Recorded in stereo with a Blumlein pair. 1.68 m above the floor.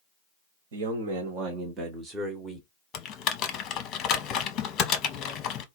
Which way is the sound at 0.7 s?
55° right.